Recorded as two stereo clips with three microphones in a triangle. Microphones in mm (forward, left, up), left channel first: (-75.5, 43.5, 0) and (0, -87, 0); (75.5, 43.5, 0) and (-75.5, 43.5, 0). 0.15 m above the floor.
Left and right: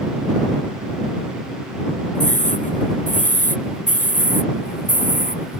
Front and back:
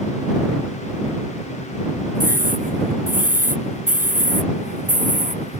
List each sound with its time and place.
2.1 s a scream: 155° left; by 5.6 s 145° left